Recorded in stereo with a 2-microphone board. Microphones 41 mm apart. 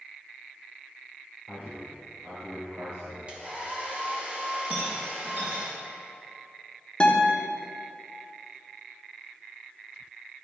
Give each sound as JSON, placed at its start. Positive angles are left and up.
{"t": 1.5, "sound": "a man speaking", "side_deg": -65, "distance_m": 2.5}
{"t": 3.3, "sound": "a hair dryer", "side_deg": -30, "distance_m": 1.5}
{"t": 4.7, "sound": "a rattle", "side_deg": -50, "distance_m": 2.5}
{"t": 7.0, "sound": "a guitar", "side_deg": 25, "distance_m": 1.0}